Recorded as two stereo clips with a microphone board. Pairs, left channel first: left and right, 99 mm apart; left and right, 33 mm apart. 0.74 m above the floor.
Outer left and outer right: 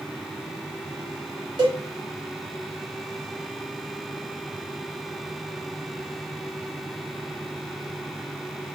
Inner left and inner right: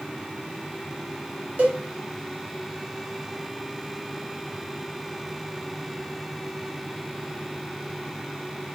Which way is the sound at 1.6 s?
50° right (ahead or behind).